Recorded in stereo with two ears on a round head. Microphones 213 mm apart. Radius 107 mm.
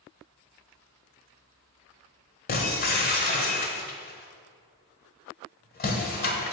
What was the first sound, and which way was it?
Breaking glass, 40° left (ahead or behind).